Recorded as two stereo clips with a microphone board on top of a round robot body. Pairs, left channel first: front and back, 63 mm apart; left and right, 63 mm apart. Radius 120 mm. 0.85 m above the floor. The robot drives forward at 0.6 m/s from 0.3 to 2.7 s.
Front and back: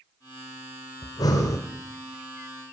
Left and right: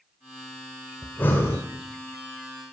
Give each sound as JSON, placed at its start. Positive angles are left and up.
{"t": 1.0, "sound": "breathing", "azimuth_deg": 25, "distance_m": 1.2}